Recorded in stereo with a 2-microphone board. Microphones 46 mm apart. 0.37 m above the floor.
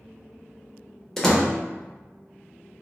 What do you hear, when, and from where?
1.2 s a door slam: 10° left (ahead or behind), 0.6 m